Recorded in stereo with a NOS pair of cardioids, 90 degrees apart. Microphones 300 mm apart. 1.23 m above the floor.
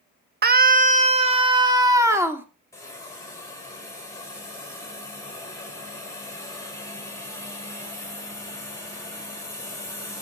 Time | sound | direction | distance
0.4 | a scream | 30° right | 1.4 m
2.7 | a hiss | 10° left | 5 m